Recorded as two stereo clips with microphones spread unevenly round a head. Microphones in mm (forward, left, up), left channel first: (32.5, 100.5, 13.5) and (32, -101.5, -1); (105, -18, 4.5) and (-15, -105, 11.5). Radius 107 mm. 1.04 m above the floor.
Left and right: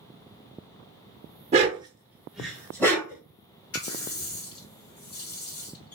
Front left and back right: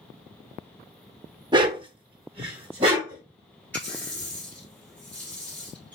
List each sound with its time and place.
1.5 s a dog barking: 125° right, 0.7 m; by 3.2 s 160° left, 1.1 m
3.7 s a running tap: 120° left, 1.7 m